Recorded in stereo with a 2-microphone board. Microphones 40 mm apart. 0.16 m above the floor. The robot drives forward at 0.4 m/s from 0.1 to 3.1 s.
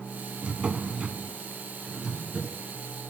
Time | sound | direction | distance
0.4 | a drawer | 30° right (ahead or behind) | 0.6 m